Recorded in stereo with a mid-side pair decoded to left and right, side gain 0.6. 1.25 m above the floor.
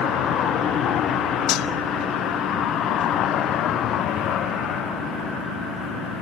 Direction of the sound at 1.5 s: 65° left.